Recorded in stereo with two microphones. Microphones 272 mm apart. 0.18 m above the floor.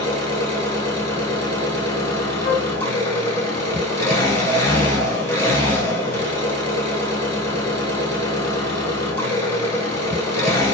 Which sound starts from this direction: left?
A flute, at 2.4 s.